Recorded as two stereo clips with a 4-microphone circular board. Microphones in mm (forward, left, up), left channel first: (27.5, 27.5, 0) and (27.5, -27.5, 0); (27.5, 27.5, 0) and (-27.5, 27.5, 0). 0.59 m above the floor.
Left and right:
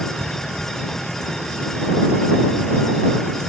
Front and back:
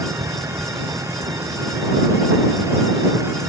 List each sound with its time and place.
0.0 s a vehicle: 175° left